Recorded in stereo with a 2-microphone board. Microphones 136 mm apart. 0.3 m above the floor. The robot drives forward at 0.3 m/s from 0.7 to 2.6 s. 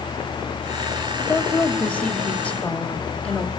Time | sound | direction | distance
1.3 | a woman speaking | 10° left (ahead or behind) | 1.0 m